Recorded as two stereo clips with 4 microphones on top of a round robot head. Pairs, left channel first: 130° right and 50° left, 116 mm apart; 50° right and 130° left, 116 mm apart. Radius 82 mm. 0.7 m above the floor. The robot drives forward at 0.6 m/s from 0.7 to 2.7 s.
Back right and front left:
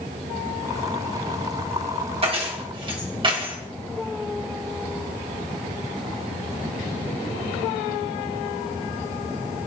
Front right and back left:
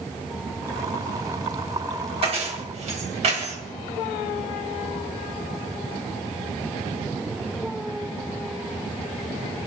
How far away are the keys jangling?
About 2.5 m.